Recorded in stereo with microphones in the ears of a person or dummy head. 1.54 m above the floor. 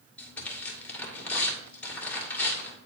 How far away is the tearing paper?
About 2.0 m.